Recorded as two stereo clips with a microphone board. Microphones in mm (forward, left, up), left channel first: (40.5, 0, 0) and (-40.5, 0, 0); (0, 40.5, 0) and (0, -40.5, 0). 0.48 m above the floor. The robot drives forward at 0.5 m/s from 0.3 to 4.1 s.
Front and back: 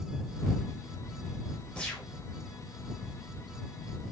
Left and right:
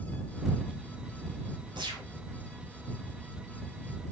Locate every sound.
1.8 s a gunshot: 80° right, 1.3 m; by 2.1 s 85° right, 1.3 m